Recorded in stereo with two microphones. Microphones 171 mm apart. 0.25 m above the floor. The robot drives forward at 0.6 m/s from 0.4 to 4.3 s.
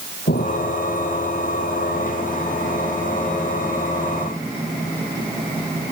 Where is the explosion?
75° left (ahead or behind).